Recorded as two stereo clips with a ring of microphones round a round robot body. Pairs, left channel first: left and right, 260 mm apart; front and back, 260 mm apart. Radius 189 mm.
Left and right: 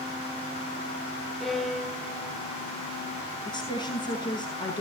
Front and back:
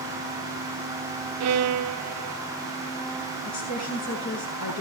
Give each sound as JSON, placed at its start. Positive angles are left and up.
{"t": 1.4, "sound": "a violin", "azimuth_deg": 180, "distance_m": 0.7}
{"t": 3.5, "sound": "a woman speaking", "azimuth_deg": 15, "distance_m": 8.5}